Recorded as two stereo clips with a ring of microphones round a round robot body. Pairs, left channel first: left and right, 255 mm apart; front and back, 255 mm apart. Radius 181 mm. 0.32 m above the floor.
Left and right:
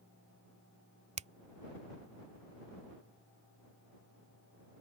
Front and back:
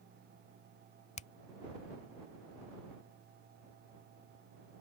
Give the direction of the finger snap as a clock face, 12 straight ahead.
2 o'clock.